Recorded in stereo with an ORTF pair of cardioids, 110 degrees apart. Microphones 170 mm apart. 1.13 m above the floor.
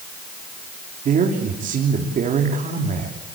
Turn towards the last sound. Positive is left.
turn(degrees=-50)